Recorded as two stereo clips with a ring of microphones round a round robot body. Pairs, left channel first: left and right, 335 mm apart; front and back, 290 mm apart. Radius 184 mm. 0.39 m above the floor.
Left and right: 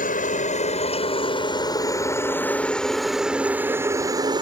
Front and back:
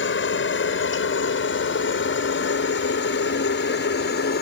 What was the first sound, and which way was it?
A helicopter, 30° left.